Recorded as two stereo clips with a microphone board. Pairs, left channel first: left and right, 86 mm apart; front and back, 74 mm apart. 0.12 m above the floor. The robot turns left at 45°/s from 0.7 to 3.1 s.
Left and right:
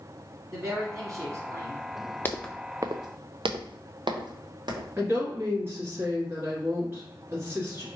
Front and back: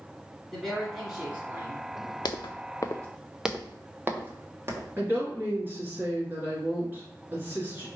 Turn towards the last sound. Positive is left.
turn(degrees=-135)